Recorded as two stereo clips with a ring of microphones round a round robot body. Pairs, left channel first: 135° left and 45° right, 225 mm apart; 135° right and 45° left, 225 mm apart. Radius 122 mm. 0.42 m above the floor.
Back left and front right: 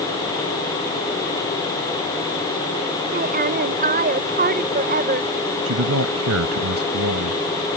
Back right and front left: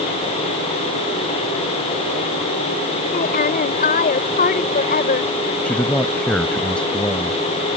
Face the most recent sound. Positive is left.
turn(degrees=-50)